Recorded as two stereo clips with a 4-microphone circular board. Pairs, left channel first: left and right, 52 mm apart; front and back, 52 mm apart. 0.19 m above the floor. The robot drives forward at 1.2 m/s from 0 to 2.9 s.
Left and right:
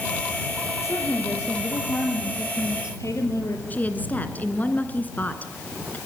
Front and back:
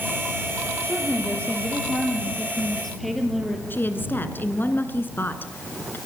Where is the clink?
I don't hear a clink.